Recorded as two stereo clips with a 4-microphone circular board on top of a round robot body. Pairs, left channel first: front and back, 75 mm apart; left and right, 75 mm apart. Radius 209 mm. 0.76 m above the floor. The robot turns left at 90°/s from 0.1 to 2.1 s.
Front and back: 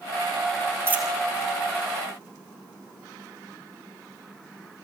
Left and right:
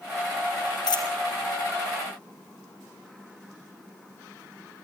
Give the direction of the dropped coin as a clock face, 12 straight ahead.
8 o'clock.